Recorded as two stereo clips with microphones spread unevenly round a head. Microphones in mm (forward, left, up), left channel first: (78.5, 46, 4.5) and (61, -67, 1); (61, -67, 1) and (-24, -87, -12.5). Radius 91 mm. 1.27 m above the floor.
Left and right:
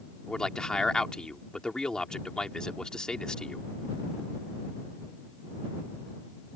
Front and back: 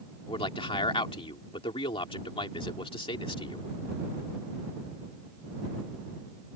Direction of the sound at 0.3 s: Straight ahead.